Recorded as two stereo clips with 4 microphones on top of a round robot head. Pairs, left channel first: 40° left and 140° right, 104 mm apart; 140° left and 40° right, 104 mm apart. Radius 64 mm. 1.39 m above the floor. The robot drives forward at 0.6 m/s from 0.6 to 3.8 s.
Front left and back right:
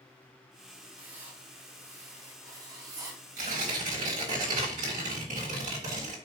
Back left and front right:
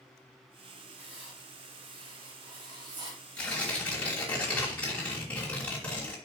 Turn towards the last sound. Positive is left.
turn(degrees=-145)